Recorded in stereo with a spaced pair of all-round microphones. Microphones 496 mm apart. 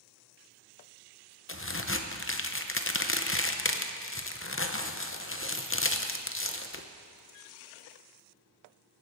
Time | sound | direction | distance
1.5 | a crack | 25° left (ahead or behind) | 0.7 m